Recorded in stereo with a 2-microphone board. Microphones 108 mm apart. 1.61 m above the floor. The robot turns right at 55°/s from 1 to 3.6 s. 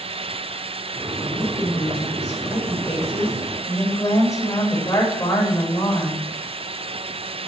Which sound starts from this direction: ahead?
A woman speaking, at 1.2 s.